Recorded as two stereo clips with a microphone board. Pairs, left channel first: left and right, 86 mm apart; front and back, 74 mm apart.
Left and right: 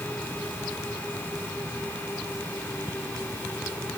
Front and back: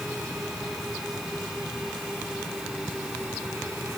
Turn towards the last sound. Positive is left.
No sound to turn to.